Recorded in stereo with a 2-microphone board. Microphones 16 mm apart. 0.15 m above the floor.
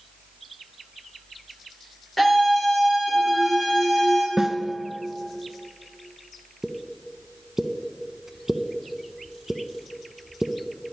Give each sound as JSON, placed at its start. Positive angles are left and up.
{"t": 2.2, "sound": "a scream", "side_deg": 25, "distance_m": 3.5}
{"t": 4.4, "sound": "a snare drum", "side_deg": -30, "distance_m": 0.6}
{"t": 6.6, "sound": "a pop", "side_deg": -25, "distance_m": 0.6}